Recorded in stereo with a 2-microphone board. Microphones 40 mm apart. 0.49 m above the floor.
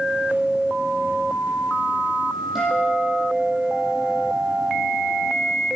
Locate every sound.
2.5 s a guitar: 5° right (ahead or behind), 9.5 m